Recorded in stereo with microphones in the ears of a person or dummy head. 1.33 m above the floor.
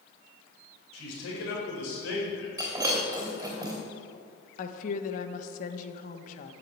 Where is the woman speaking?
45° left (ahead or behind), 1.1 m.